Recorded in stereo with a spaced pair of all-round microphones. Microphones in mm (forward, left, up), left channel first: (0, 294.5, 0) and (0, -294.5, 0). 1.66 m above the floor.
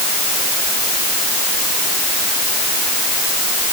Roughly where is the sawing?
No sawing in this recording.